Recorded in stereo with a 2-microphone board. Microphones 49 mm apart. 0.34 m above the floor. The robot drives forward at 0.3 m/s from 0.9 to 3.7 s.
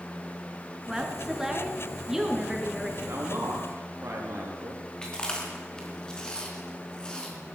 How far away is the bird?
I don't hear a bird.